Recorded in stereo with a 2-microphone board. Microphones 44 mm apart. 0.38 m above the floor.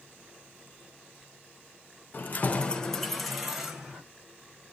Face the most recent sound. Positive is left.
turn(degrees=-10)  # may be behind; listen again after turning